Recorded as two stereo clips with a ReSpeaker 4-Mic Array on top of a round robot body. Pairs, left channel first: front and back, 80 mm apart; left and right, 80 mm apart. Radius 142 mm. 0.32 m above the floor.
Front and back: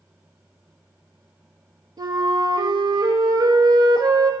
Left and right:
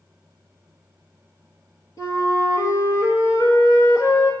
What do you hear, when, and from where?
2.0 s a flute: 135° left, 2 m